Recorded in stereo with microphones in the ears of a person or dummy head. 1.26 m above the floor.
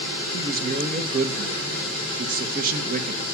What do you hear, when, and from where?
0.3 s a man speaking: 45° right (ahead or behind), 1.4 m